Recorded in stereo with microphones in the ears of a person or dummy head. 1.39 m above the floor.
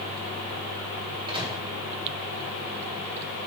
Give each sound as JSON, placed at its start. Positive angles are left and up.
{"t": 1.3, "sound": "a microwave", "side_deg": -35, "distance_m": 2.5}